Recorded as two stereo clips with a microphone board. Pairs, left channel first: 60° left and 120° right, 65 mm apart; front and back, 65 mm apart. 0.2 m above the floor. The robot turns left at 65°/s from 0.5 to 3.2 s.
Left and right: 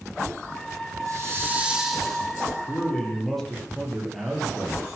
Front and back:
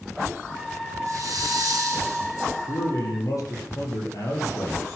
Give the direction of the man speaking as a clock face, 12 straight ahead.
12 o'clock.